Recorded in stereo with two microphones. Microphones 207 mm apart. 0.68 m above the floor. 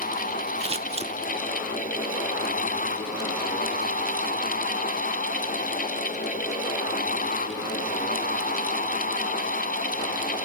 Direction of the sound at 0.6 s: 30° right (ahead or behind).